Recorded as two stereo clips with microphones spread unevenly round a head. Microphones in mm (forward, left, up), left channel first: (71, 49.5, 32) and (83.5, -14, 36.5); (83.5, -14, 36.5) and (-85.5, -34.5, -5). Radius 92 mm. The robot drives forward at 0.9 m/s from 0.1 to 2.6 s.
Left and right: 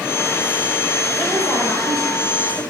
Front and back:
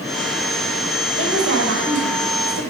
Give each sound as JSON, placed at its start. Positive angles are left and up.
{"t": 1.2, "sound": "a woman speaking", "azimuth_deg": 180, "distance_m": 5.5}